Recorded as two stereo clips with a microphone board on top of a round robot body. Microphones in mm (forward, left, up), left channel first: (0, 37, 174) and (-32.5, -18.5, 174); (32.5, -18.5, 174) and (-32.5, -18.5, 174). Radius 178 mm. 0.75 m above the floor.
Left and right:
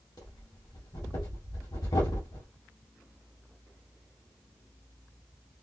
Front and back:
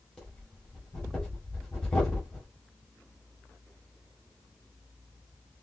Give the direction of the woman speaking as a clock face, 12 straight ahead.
I don't hear a woman speaking.